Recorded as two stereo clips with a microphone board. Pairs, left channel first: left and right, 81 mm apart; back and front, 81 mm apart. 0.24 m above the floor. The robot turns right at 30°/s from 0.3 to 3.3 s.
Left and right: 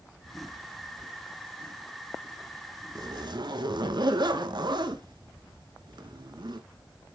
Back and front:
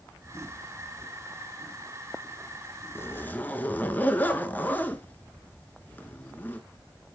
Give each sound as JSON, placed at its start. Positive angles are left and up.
{"t": 3.0, "sound": "a zipper", "azimuth_deg": -125, "distance_m": 0.7}